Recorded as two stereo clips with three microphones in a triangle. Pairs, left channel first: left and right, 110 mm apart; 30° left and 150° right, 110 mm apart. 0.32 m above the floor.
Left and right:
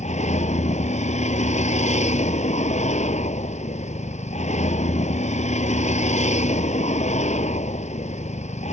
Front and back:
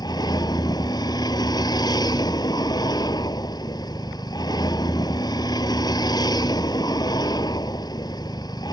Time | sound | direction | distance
0.0 | a vehicle | 85° left | ?